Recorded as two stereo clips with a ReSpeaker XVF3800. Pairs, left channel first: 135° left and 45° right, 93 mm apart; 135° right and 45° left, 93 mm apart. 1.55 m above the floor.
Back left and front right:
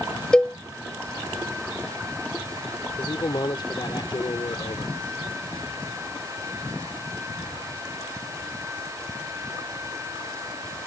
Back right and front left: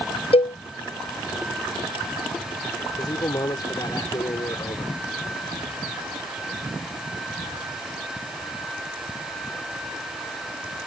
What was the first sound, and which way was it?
A cowbell, 145° right.